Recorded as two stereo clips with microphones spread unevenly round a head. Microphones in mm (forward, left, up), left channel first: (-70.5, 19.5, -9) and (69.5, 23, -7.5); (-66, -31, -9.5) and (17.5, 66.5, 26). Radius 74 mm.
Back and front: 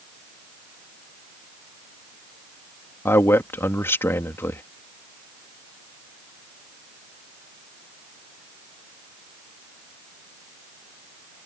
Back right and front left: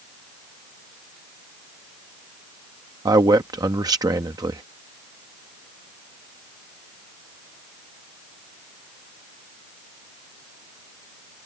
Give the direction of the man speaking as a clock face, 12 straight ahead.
8 o'clock.